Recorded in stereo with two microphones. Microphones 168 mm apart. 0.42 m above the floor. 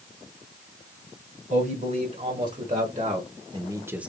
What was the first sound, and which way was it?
A man speaking, 55° right (ahead or behind).